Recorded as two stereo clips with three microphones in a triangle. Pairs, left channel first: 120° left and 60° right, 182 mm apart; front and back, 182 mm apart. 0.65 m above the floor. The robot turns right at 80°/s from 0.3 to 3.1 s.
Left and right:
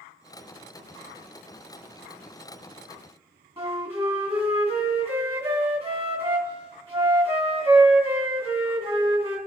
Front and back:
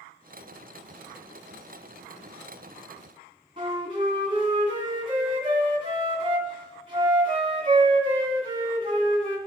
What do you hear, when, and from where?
3.6 s a flute: 115° right, 2 m